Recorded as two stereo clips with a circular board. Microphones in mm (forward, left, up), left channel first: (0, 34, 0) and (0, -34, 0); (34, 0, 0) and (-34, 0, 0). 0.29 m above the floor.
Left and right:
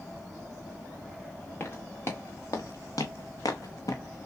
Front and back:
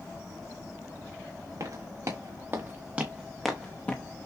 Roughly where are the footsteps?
Behind left.